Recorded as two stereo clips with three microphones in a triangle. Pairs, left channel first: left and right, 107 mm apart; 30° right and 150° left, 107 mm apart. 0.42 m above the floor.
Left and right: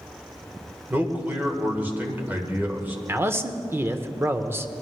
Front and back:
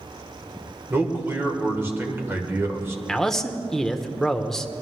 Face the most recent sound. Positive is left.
turn(degrees=-110)